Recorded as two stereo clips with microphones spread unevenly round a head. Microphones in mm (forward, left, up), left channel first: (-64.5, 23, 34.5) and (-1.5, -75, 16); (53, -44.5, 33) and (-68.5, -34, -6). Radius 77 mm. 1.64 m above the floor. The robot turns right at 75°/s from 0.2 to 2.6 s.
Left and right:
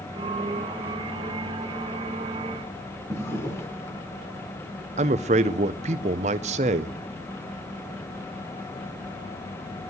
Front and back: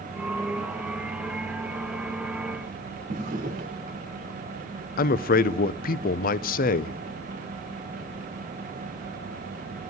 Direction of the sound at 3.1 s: 165° left.